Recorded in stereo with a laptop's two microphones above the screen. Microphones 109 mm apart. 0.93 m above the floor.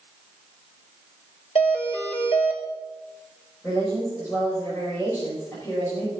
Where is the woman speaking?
20° left (ahead or behind), 5.5 m.